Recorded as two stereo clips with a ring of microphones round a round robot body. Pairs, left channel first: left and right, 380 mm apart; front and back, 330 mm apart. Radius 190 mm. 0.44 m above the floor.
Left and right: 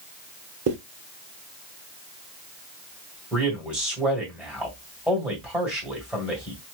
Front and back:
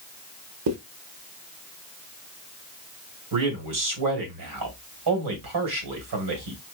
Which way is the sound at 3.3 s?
175° right.